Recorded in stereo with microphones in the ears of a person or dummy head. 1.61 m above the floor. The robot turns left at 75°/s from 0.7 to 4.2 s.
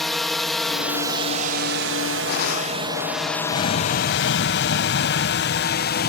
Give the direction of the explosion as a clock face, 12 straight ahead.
7 o'clock.